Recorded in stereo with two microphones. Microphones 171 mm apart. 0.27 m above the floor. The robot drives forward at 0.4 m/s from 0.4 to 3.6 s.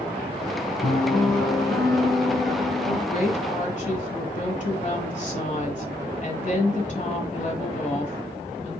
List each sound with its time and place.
0.8 s a piano: 25° left (ahead or behind), 0.7 m; by 3.0 s 10° left (ahead or behind), 1.5 m
3.1 s a woman speaking: 50° left (ahead or behind), 1.4 m; by 8.8 s 45° left (ahead or behind), 1.5 m